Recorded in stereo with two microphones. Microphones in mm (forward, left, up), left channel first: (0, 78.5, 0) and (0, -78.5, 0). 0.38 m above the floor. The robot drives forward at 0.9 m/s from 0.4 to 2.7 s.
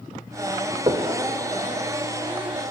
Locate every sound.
0.9 s knocking: 35° right (ahead or behind), 0.8 m; by 1.1 s 30° right (ahead or behind), 0.8 m